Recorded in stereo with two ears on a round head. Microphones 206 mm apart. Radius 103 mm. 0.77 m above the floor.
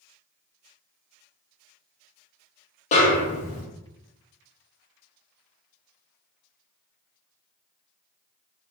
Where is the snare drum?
30° left (ahead or behind), 0.6 m.